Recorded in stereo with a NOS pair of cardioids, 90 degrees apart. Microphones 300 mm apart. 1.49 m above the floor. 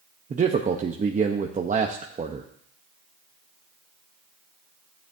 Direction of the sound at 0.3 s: 25° right.